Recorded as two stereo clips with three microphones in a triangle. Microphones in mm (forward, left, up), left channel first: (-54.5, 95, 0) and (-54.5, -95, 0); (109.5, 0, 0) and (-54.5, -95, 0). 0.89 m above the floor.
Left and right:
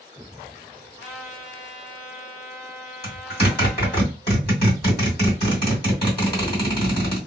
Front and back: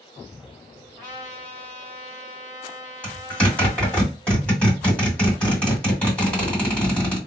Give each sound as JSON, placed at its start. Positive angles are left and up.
{"t": 1.0, "sound": "a trumpet", "azimuth_deg": 145, "distance_m": 1.5}
{"t": 3.0, "sound": "a zipper", "azimuth_deg": 110, "distance_m": 2.5}